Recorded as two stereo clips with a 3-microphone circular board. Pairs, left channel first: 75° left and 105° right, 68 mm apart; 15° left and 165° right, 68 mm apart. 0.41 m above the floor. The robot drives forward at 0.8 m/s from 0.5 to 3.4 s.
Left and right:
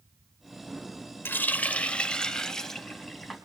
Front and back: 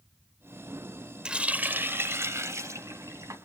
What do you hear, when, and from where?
1.2 s a running tap: 120° left, 0.9 m; by 3.4 s 165° left, 2 m